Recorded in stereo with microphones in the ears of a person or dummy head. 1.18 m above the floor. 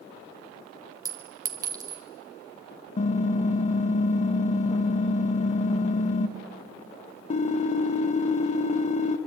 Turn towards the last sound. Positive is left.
turn(degrees=40)  # may be behind; listen again after turning